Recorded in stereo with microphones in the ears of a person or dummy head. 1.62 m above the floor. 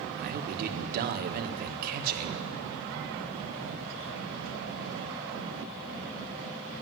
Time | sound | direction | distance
0.2 | a man speaking | 50° right (ahead or behind) | 1.6 m